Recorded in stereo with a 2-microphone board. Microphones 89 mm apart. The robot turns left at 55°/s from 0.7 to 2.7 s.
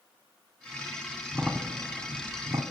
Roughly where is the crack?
Centre.